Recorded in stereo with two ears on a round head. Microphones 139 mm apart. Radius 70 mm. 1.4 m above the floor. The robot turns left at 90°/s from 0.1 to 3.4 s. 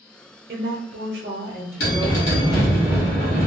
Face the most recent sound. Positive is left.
turn(degrees=-55)